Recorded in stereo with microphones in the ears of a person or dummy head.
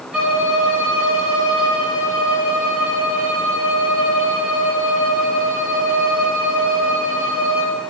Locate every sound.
0.1 s a violin: 10° right (ahead or behind), 7 m